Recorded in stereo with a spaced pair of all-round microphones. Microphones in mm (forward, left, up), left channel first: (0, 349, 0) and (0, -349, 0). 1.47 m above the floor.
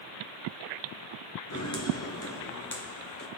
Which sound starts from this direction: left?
Footsteps, at 1.5 s.